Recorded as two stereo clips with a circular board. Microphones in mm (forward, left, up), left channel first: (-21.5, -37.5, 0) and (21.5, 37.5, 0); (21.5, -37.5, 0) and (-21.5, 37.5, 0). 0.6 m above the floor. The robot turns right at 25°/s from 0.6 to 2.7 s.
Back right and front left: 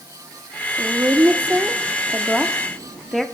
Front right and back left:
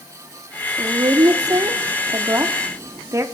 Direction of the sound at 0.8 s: 105° left.